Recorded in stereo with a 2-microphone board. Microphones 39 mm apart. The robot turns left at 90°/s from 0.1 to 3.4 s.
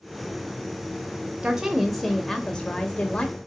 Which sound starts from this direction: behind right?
A woman speaking, at 1.4 s.